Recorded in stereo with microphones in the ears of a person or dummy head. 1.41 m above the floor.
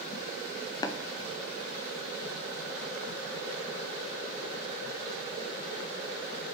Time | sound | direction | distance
0.8 | tapping | 25° left (ahead or behind) | 0.6 m